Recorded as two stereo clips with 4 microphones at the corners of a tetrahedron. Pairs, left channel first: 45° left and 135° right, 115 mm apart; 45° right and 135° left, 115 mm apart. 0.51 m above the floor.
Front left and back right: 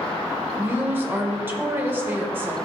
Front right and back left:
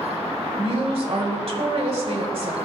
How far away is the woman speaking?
About 1.5 m.